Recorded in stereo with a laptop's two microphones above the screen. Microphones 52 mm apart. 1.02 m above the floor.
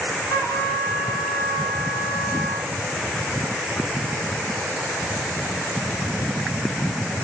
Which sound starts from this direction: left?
A trumpet, at 0.3 s.